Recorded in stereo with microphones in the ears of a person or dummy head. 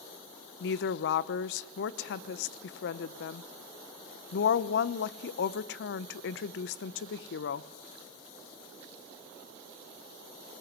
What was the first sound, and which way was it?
A woman speaking, 65° left (ahead or behind).